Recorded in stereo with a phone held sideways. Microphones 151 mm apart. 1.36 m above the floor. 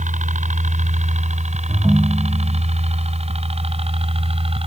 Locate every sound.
0.0 s a helicopter: 55° right (ahead or behind); by 4.7 s 40° right (ahead or behind)
1.7 s a ringtone: 5° right (ahead or behind)